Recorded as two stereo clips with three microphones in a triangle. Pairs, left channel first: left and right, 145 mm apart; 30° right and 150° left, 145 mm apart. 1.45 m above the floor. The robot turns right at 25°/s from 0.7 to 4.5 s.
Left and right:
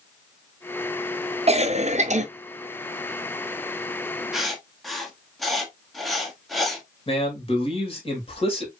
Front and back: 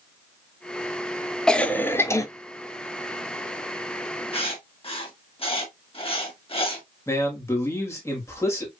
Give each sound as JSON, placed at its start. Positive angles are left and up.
{"t": 1.5, "sound": "a cough", "azimuth_deg": -115, "distance_m": 0.6}
{"t": 4.3, "sound": "writing", "azimuth_deg": -5, "distance_m": 1.1}
{"t": 7.1, "sound": "a man speaking", "azimuth_deg": 40, "distance_m": 2.0}